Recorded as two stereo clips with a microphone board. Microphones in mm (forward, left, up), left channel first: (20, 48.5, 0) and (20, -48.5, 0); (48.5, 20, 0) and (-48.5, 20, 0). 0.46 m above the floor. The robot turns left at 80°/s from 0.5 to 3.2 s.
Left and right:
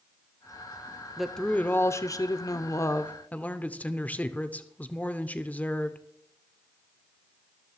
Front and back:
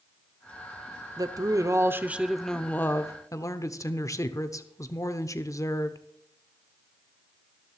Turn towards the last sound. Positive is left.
turn(degrees=25)